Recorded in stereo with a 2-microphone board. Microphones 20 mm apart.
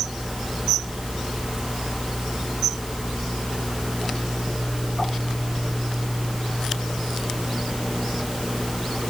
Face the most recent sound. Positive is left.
No sound to turn to.